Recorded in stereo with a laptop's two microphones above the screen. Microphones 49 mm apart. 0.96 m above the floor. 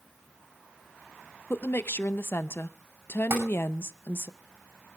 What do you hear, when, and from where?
1.5 s a woman speaking: 55° left (ahead or behind), 0.6 m
3.3 s tapping: 55° right (ahead or behind), 9.5 m